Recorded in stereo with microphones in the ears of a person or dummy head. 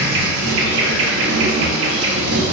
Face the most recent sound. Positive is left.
turn(degrees=-60)  # may be behind; listen again after turning